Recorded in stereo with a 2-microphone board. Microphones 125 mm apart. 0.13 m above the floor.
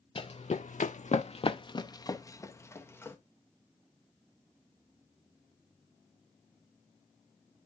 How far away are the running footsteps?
About 0.7 m.